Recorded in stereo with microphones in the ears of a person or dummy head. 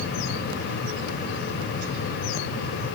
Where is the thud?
No thud in this recording.